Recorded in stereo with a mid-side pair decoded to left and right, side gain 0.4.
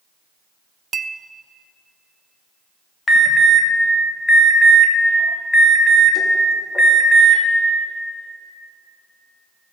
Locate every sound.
0.9 s a clink: 45° right, 0.6 m
3.1 s an alarm: 35° left, 2 m